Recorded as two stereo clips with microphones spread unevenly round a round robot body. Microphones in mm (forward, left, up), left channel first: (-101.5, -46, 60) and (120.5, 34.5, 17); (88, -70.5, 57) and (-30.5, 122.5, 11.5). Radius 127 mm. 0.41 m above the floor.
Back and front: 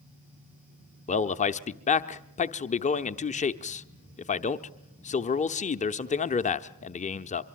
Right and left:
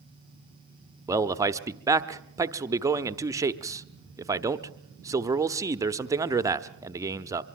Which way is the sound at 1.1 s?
150° left.